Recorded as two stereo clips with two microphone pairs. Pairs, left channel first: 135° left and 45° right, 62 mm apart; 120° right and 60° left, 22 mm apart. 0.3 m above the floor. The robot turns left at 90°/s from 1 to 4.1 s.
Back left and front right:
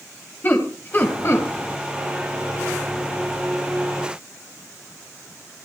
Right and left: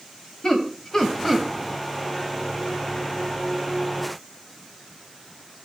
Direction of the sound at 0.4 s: 175° left.